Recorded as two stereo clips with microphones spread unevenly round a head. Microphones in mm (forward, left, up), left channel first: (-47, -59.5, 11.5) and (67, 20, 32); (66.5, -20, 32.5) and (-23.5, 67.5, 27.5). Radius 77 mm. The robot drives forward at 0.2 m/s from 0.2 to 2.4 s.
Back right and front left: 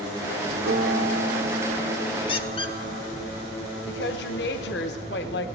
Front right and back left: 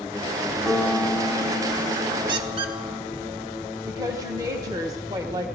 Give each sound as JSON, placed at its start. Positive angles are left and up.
{"t": 0.7, "sound": "a piano", "azimuth_deg": 50, "distance_m": 1.4}
{"t": 2.3, "sound": "a squeak", "azimuth_deg": 170, "distance_m": 0.8}
{"t": 3.9, "sound": "a woman speaking", "azimuth_deg": -155, "distance_m": 1.2}